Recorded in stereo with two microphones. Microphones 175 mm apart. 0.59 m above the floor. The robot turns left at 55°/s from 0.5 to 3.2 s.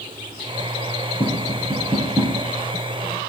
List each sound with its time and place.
1.2 s tapping: 45° left (ahead or behind), 6 m; by 2.4 s 20° right (ahead or behind), 6 m